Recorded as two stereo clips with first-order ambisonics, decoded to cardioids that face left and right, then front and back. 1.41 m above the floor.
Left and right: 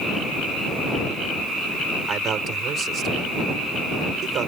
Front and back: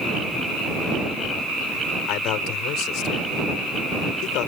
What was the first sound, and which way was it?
A man speaking, 30° right.